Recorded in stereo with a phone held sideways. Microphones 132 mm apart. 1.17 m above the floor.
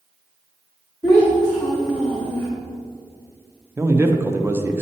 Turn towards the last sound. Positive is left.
turn(degrees=-20)  # may be behind; listen again after turning